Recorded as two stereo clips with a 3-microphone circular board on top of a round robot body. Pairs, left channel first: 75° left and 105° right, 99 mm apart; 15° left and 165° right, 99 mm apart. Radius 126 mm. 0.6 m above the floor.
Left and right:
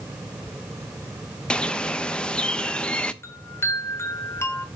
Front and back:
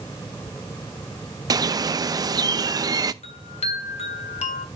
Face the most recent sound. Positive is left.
turn(degrees=10)